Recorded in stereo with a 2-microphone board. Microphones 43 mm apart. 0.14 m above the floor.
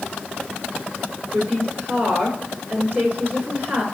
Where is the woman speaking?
45° right (ahead or behind), 2.0 m.